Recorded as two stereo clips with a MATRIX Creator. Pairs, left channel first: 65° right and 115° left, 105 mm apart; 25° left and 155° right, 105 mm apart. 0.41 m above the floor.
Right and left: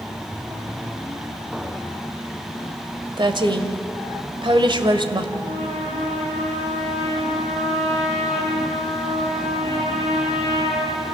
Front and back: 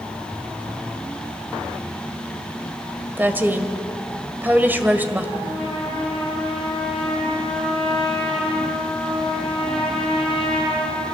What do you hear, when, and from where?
3.2 s a woman speaking: 135° left, 1.9 m
5.4 s a trumpet: 110° left, 6.5 m